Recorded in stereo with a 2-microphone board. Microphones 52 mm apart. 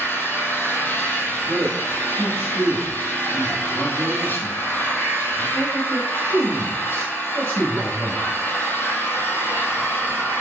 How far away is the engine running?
About 0.9 m.